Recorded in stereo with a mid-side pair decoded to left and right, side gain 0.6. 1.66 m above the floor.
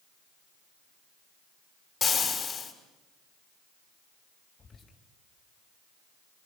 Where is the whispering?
30° left, 4.5 m.